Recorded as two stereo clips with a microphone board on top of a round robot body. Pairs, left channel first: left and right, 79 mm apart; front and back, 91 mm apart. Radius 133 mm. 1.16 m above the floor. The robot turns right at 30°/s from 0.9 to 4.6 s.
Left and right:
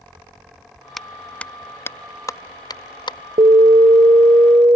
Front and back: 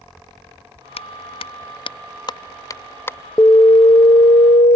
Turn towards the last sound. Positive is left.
turn(degrees=-30)